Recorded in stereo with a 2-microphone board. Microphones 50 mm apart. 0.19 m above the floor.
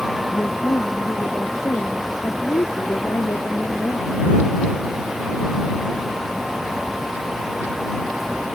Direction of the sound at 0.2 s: 65° left (ahead or behind).